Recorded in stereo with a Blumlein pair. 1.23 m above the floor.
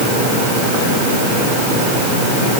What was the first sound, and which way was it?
Only background noise.